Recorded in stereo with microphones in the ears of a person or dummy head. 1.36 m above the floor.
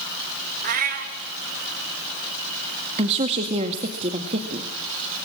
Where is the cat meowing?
45° right (ahead or behind), 1.7 m.